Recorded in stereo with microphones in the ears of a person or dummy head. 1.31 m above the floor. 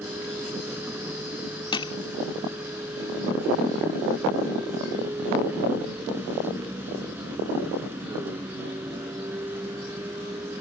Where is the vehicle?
15° right (ahead or behind).